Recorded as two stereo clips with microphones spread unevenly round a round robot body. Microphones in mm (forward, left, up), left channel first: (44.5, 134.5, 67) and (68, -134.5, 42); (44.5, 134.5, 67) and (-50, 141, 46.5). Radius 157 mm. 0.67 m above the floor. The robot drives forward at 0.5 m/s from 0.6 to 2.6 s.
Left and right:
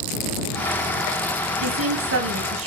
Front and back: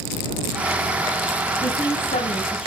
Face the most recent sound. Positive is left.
turn(degrees=-50)